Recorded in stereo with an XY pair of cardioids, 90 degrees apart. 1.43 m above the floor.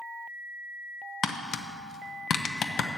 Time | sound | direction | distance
1.2 | tapping | 70° left | 0.7 m